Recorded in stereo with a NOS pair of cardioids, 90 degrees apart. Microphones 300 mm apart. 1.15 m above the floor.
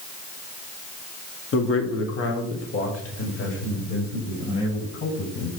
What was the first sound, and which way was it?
A man speaking, 45° left.